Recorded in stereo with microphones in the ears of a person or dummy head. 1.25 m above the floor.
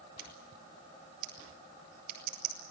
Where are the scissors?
55° right (ahead or behind), 5.5 m.